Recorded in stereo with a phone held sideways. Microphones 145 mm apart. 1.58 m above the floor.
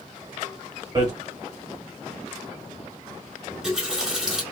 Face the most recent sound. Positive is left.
turn(degrees=-5)  # may be behind; listen again after turning